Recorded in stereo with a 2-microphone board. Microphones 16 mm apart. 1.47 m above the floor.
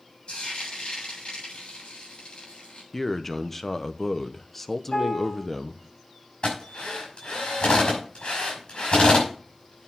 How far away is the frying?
About 7.5 m.